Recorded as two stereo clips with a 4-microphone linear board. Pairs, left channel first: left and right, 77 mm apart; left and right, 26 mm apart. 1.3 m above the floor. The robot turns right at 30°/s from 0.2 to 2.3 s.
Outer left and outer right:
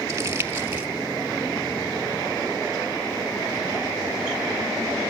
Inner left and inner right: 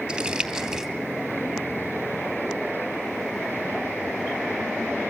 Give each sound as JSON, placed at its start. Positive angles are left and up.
{"t": 0.1, "sound": "crumpling", "side_deg": -35, "distance_m": 3.0}